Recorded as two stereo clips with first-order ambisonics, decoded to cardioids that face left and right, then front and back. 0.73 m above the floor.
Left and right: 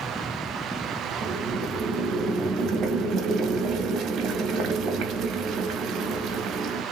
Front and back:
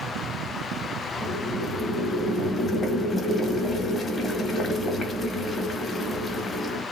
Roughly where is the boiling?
Ahead right.